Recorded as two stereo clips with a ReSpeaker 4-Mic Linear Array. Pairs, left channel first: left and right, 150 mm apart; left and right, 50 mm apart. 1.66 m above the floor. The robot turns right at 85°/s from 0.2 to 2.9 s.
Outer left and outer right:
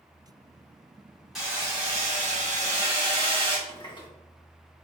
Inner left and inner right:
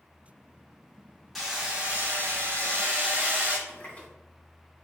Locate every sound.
1.4 s hammering: straight behind, 1.8 m; by 3.6 s 45° right, 1.8 m
3.7 s a running tap: 35° left (ahead or behind), 1.3 m